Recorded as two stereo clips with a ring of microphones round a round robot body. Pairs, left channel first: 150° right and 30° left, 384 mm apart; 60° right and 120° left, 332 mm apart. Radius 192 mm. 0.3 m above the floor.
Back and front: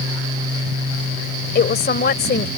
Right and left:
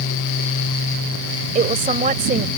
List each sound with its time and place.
1.6 s a woman speaking: 170° left